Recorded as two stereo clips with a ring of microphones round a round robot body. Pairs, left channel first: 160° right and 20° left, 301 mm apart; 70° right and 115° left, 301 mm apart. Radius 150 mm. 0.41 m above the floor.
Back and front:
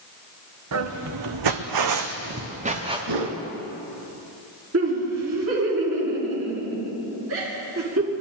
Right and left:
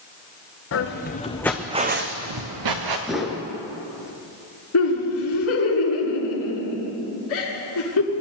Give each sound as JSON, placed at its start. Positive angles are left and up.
{"t": 0.7, "sound": "footsteps", "azimuth_deg": -20, "distance_m": 1.8}
{"t": 3.1, "sound": "a whoosh", "azimuth_deg": 25, "distance_m": 2.0}
{"t": 4.7, "sound": "laughter", "azimuth_deg": -25, "distance_m": 5.0}